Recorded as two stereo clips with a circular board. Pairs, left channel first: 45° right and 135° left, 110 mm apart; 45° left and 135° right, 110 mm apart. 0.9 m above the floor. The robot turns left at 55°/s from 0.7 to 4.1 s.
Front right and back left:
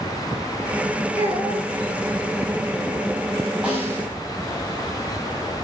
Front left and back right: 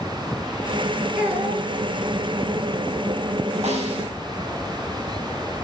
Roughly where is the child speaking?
Ahead right.